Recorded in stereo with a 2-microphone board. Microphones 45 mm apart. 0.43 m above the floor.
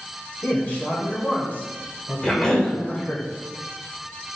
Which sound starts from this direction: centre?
A cough, at 2.2 s.